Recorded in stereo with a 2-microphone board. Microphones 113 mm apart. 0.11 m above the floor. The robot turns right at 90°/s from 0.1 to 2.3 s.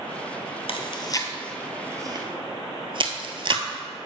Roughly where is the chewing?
Left.